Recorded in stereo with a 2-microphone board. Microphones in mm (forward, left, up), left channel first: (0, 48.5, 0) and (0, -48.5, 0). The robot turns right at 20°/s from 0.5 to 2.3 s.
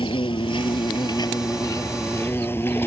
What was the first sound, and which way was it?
An insect, 120° left.